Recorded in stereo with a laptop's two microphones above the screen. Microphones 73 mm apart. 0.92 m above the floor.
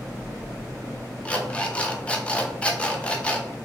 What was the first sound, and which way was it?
An alarm clock, 15° left (ahead or behind).